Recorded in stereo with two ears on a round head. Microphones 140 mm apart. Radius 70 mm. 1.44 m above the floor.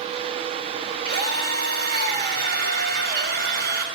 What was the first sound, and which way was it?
A drill, 85° right.